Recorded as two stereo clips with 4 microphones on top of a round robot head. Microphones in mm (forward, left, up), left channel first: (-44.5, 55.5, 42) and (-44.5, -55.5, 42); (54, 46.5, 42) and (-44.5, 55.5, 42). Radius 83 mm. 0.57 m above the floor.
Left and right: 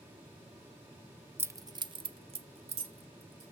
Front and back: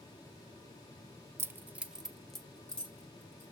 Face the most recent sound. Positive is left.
turn(degrees=-80)